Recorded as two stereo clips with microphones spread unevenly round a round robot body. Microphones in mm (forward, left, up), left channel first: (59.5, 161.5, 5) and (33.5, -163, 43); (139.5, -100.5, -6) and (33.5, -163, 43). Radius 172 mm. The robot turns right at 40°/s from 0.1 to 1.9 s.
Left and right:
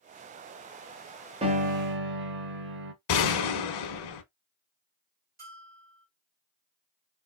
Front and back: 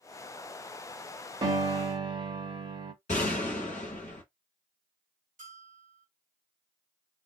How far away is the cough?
No cough in this recording.